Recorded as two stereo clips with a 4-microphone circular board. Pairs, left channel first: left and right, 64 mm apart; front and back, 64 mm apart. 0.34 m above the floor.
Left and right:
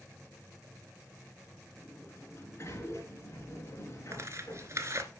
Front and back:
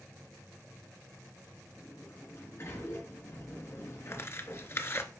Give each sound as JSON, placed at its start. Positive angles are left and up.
{"t": 1.8, "sound": "a sliding door", "azimuth_deg": 45, "distance_m": 3.0}
{"t": 4.1, "sound": "tearing paper", "azimuth_deg": -50, "distance_m": 1.0}